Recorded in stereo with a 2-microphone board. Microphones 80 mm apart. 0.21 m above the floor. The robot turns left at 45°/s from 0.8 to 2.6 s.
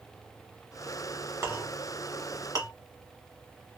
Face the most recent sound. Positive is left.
turn(degrees=-50)  # may be behind; listen again after turning